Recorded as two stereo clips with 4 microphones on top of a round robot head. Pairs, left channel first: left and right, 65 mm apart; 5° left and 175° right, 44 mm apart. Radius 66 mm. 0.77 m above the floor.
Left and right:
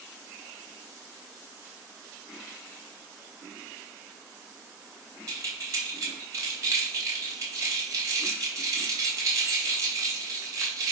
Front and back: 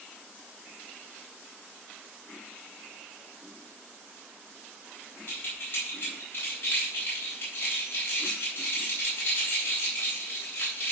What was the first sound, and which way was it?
Keys jangling, 50° right.